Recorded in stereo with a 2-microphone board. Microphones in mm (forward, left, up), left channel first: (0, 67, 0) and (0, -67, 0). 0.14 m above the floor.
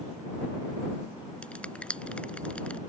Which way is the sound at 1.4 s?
10° left (ahead or behind).